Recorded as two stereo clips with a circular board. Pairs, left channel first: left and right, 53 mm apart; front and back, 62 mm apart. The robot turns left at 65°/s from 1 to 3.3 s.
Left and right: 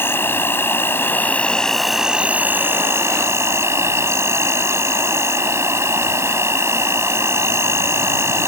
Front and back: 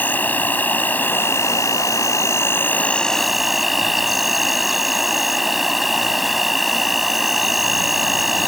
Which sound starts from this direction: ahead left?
An insect, at 0.0 s.